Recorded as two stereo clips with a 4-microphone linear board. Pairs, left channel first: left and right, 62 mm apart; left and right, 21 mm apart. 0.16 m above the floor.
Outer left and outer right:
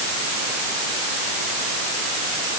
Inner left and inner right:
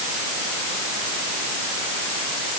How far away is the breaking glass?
No breaking glass in this recording.